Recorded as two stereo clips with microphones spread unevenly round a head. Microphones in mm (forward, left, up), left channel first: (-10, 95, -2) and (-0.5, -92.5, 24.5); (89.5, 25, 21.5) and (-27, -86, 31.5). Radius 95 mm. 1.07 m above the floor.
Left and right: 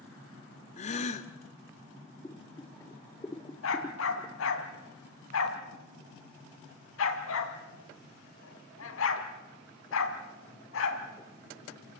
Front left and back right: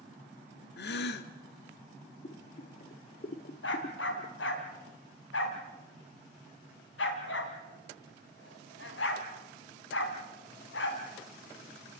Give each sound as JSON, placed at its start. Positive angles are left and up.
{"t": 0.8, "sound": "a gasp", "azimuth_deg": 35, "distance_m": 1.2}
{"t": 2.2, "sound": "boiling", "azimuth_deg": 15, "distance_m": 1.0}
{"t": 3.6, "sound": "a dog barking", "azimuth_deg": 75, "distance_m": 2.5}